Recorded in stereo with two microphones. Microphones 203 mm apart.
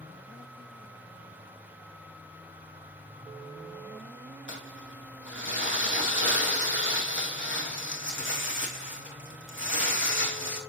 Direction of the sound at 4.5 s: 75° left (ahead or behind).